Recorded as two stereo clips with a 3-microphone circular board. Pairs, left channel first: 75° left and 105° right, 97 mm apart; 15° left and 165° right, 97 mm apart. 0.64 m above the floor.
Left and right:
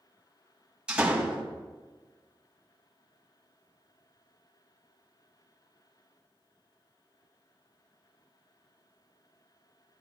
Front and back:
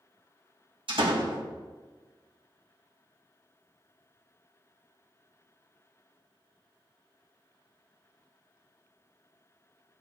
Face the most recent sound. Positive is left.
turn(degrees=175)